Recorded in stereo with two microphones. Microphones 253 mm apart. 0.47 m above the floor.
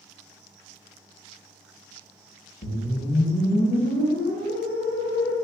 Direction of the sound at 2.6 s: 50° left (ahead or behind).